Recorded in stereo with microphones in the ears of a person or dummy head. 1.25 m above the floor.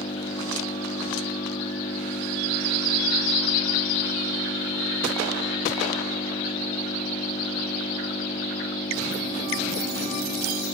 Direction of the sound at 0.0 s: 30° left (ahead or behind).